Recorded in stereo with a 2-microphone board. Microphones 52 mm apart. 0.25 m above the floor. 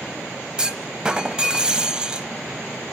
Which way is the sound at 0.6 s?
15° right (ahead or behind).